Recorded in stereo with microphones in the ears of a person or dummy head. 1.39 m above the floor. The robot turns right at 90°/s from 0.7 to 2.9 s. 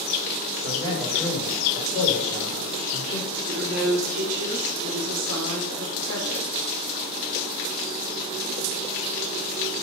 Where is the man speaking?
45° right, 4.5 m; by 3.3 s 155° left, 4.5 m.